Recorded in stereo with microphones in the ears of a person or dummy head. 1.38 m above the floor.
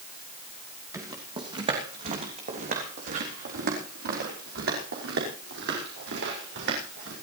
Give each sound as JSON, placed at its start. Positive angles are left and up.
{"t": 0.9, "sound": "footsteps", "side_deg": -20, "distance_m": 3.0}